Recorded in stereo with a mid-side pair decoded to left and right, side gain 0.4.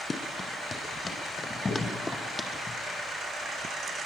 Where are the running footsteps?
35° left, 5 m; by 2.5 s 25° left, 3.5 m.